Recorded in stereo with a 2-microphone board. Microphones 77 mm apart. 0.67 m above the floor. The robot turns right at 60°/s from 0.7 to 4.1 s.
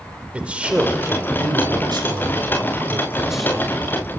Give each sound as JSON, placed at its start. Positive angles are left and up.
{"t": 0.3, "sound": "a man speaking", "azimuth_deg": -160, "distance_m": 2.0}